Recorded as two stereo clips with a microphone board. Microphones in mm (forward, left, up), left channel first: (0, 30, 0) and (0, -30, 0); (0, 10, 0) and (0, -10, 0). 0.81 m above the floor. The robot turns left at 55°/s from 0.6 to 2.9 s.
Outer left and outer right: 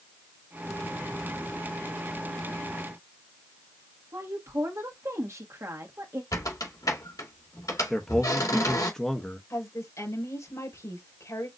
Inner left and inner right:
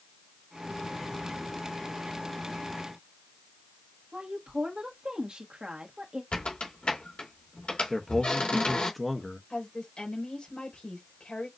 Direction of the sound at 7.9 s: 10° left (ahead or behind).